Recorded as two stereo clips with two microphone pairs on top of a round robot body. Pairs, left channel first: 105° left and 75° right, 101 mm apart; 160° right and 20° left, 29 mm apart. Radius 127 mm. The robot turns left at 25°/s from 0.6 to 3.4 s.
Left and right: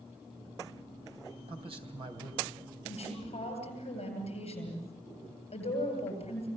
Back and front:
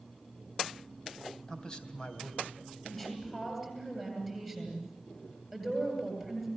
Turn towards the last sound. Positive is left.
turn(degrees=110)